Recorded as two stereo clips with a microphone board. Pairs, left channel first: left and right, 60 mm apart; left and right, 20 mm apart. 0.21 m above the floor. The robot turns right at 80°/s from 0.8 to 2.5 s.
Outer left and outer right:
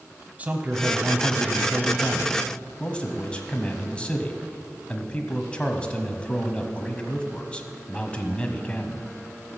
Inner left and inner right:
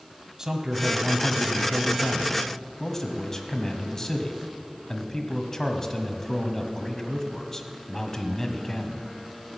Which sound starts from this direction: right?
A man speaking, at 0.4 s.